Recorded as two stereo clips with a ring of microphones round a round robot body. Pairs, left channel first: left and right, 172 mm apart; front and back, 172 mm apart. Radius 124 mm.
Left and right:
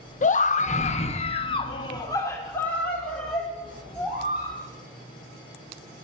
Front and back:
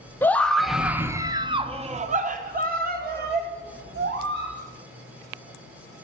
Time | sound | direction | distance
0.2 | a scream | 75° left | 1.1 m